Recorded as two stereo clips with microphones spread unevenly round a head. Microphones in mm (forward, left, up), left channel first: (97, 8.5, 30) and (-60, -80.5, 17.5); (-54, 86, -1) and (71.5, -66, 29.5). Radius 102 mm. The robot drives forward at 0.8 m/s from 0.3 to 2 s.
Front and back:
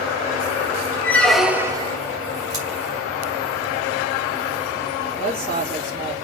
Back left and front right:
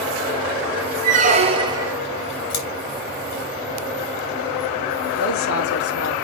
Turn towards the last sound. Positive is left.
turn(degrees=150)